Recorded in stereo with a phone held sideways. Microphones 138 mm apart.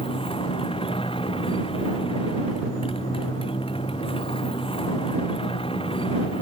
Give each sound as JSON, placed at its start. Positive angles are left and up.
{"t": 0.0, "sound": "a motorcycle", "side_deg": 40}